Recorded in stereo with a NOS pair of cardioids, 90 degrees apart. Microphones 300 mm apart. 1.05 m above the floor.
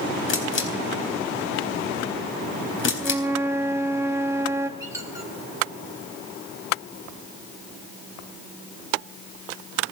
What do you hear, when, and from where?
0.3 s a camera shutter: 40° left, 4 m
3.0 s a flute: 10° right, 0.8 m
4.8 s a squeak: 10° right, 2.5 m